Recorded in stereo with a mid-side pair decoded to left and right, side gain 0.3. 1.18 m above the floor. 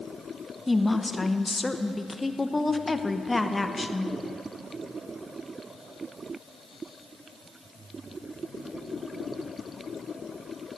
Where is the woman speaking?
20° left, 0.8 m.